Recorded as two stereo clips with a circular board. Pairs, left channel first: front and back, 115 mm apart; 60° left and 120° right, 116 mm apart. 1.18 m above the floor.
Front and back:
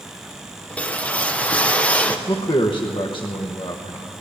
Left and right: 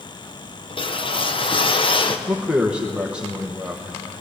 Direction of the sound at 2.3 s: 40° right.